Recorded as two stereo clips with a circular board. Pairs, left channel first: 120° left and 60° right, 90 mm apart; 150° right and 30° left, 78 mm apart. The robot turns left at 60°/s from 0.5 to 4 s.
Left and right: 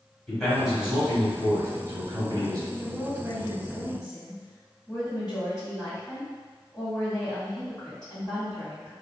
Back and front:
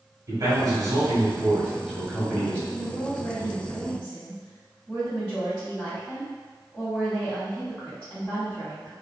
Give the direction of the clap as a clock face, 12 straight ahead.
No clap in this recording.